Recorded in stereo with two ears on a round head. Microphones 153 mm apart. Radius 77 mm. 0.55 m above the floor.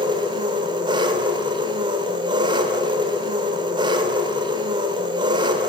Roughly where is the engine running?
Right.